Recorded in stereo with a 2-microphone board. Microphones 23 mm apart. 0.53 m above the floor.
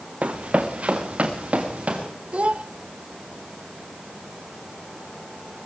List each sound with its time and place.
0.2 s running footsteps: 75° right (ahead or behind), 2 m; by 2.1 s 70° right (ahead or behind), 5 m
2.3 s a child speaking: 70° right (ahead or behind), 0.8 m